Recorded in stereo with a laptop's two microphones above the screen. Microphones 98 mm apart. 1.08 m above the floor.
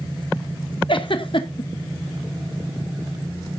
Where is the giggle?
60° left (ahead or behind), 1.0 m.